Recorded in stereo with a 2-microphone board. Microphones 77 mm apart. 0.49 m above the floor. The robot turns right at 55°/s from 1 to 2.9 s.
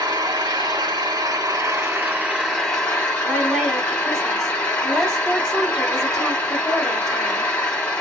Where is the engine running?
85° right, 2 m; by 8.0 s 15° left, 2 m.